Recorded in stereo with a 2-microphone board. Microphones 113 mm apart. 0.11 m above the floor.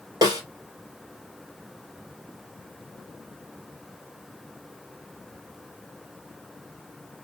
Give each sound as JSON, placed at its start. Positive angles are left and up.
{"t": 0.2, "sound": "a snare drum", "side_deg": -35, "distance_m": 2.5}